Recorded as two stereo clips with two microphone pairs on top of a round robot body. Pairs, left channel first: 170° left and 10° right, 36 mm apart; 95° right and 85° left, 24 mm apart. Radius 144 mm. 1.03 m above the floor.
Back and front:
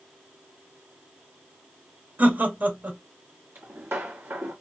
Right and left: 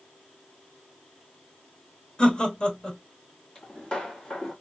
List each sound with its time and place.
2.2 s laughter: 40° right, 2 m
3.5 s footsteps: 30° right, 1.7 m